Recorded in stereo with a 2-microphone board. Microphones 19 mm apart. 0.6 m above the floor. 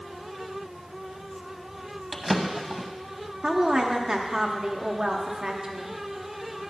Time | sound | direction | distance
2.1 | a drawer | 5° right (ahead or behind) | 1.0 m
3.4 | a woman speaking | 35° right (ahead or behind) | 0.9 m